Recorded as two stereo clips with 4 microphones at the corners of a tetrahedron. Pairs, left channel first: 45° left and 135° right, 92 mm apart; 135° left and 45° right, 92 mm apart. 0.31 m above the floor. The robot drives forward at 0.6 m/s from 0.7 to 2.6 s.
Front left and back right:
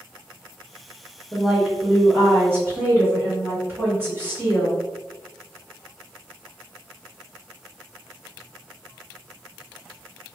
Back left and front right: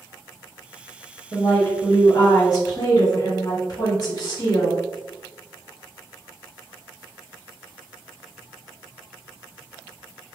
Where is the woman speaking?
130° left, 0.9 m; by 4.8 s 165° left, 1.3 m.